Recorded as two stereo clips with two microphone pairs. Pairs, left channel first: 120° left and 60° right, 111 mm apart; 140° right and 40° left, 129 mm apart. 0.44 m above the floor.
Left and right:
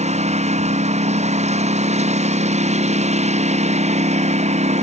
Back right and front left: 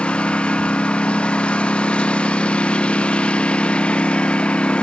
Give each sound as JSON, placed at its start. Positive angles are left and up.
{"t": 0.0, "sound": "a lawn mower", "azimuth_deg": -55}